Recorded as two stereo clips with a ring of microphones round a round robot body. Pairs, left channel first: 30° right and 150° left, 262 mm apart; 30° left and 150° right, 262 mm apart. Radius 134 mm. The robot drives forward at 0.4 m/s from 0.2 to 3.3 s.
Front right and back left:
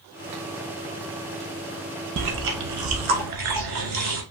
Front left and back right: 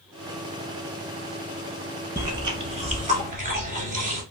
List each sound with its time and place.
2.2 s chewing: 130° left, 0.9 m; by 4.2 s 150° left, 1.2 m